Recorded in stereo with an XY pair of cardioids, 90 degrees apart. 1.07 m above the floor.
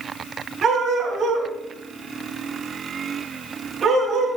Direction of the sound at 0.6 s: 60° right.